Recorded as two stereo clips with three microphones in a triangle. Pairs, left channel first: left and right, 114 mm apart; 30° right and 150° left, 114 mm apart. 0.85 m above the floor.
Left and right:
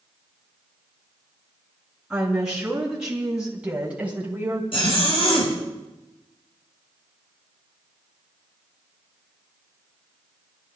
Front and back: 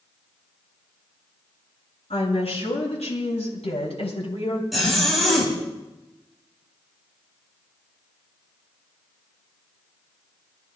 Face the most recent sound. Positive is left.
turn(degrees=60)